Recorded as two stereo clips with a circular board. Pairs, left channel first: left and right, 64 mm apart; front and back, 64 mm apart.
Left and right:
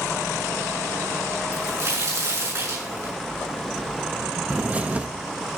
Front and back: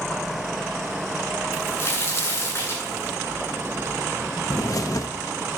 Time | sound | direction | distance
1.5 | a crack | 50° right | 6.5 m
4.5 | a bird | 25° right | 0.9 m